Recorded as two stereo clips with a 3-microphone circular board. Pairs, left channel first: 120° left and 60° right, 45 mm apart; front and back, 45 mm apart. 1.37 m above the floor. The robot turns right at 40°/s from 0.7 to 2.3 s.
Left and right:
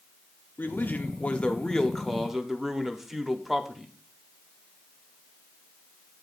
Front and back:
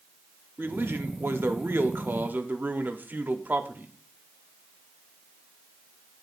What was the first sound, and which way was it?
A man speaking, 155° left.